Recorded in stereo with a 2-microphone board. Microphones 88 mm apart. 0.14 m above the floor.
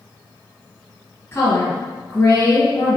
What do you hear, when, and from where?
1.3 s a woman speaking: 25° left (ahead or behind), 1.9 m